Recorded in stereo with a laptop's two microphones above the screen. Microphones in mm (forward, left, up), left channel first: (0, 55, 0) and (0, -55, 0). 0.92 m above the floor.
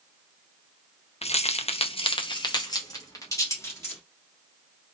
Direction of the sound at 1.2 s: 70° left (ahead or behind).